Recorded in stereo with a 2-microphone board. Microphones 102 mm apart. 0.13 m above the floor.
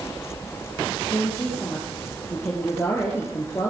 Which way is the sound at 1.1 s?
25° left (ahead or behind).